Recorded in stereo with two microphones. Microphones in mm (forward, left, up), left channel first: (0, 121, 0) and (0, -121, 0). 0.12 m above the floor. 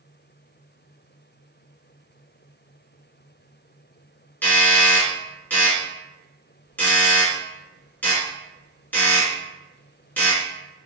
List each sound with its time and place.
4.4 s a doorbell: 5° left (ahead or behind), 1.7 m